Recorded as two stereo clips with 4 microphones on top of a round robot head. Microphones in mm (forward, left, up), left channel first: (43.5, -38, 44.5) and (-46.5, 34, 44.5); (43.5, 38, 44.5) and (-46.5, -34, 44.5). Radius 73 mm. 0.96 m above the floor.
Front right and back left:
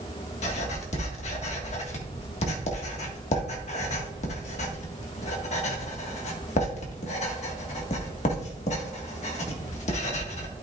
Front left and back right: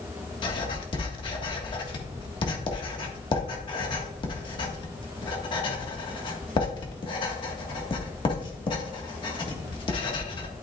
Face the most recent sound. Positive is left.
turn(degrees=-10)